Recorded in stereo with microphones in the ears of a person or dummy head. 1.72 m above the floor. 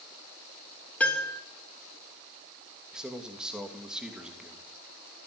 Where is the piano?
5° left (ahead or behind), 3 m.